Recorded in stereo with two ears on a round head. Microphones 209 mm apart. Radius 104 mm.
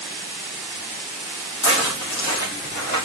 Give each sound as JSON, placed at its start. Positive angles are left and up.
{"t": 1.6, "sound": "footsteps", "side_deg": 55, "distance_m": 2.5}